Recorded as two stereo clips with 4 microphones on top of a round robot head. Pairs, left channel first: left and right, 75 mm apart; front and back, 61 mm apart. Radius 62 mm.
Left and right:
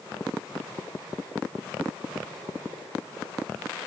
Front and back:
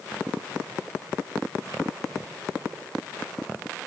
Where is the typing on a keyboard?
I don't hear typing on a keyboard.